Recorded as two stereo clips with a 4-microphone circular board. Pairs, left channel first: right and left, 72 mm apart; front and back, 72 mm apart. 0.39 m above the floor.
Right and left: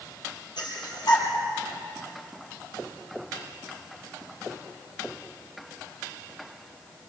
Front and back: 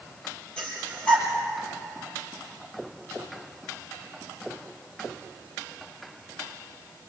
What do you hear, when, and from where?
0.6 s breathing: 75° right, 5 m